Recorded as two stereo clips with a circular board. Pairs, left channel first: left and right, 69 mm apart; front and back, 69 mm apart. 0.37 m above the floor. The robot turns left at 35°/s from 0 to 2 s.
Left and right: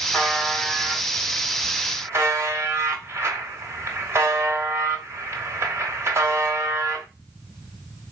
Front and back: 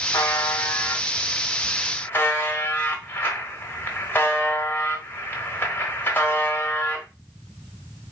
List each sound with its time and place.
0.1 s a buzzer: 10° left, 1.0 m; by 7.0 s 55° right, 1.0 m